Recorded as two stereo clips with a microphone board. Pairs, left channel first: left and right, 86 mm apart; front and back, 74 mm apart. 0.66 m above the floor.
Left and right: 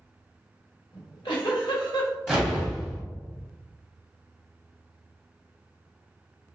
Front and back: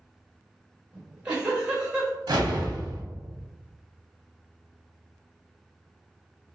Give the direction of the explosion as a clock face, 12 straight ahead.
6 o'clock.